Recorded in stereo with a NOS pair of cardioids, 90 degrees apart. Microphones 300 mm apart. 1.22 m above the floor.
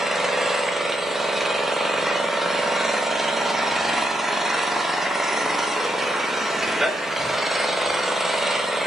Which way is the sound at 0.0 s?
Straight ahead.